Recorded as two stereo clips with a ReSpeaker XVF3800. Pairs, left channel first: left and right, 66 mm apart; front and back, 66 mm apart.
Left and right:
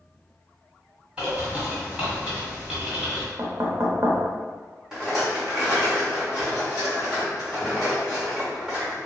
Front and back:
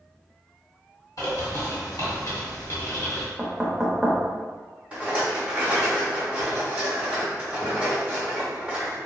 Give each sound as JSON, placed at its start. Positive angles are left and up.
{"t": 1.2, "sound": "a bird", "azimuth_deg": -20, "distance_m": 1.5}
{"t": 3.4, "sound": "knocking", "azimuth_deg": -95, "distance_m": 0.6}
{"t": 4.9, "sound": "a rattle", "azimuth_deg": -155, "distance_m": 1.3}